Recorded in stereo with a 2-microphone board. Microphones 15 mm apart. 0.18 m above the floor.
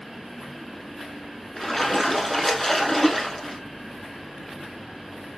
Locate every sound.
1.6 s a splash: 15° left (ahead or behind), 0.8 m